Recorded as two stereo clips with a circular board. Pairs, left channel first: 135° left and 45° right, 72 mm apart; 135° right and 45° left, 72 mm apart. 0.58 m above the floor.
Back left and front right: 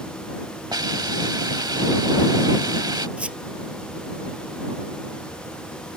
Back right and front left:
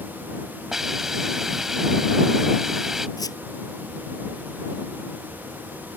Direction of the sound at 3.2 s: 115° right.